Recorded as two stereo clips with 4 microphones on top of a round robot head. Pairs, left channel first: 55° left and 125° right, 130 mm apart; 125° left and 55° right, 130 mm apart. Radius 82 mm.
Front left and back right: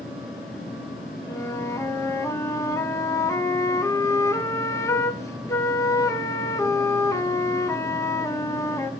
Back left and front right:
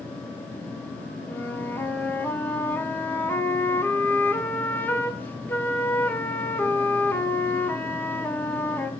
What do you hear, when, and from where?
1.3 s a flute: 75° left, 1.4 m